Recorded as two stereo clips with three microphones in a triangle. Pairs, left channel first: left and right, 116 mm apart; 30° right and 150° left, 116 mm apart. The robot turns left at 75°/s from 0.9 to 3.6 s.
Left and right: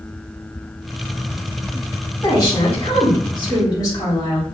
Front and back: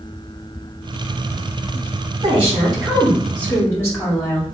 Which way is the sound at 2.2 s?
140° left.